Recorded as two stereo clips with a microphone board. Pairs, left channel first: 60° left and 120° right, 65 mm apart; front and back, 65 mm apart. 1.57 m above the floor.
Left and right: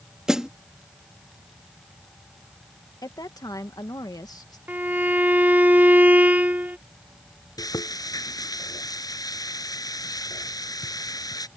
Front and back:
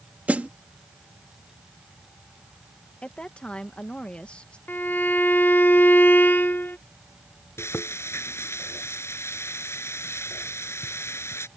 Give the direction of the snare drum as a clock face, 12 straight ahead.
6 o'clock.